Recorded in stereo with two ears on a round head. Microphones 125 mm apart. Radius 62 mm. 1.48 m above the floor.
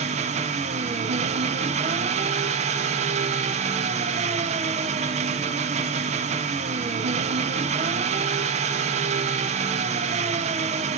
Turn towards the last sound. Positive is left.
turn(degrees=-50)  # may be behind; listen again after turning